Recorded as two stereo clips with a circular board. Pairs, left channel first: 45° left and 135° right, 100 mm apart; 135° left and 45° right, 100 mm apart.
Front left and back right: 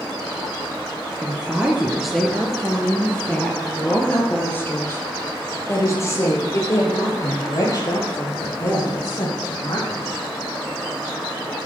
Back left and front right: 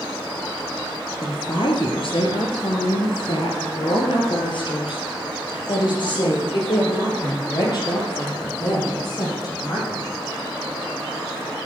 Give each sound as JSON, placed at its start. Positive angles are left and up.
{"t": 1.2, "sound": "a woman speaking", "azimuth_deg": 150, "distance_m": 2.5}